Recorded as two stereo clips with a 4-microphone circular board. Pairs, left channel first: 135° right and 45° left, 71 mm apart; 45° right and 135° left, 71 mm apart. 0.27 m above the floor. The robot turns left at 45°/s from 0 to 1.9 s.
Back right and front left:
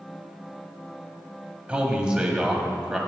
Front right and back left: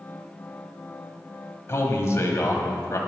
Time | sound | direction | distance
1.7 | a man speaking | 20° right | 1.4 m